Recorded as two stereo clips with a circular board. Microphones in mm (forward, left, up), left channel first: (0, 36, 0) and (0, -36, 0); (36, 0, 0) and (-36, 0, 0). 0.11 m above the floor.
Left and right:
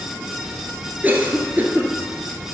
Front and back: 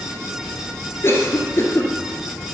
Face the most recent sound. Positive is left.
turn(degrees=-35)